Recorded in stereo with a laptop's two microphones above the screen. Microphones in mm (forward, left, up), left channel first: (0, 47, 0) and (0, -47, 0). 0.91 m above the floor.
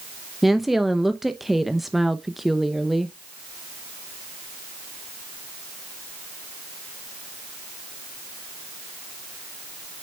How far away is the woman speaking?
About 0.7 m.